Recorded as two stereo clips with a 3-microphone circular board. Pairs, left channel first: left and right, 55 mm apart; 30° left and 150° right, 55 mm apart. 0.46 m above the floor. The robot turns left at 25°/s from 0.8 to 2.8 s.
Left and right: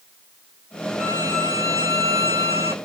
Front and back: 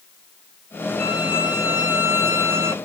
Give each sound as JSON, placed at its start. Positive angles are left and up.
{"t": 1.0, "sound": "a violin", "azimuth_deg": -65, "distance_m": 2.5}